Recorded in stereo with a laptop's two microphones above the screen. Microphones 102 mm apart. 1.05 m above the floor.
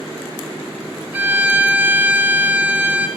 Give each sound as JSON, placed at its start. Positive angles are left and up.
{"t": 1.1, "sound": "a violin", "side_deg": -20, "distance_m": 2.5}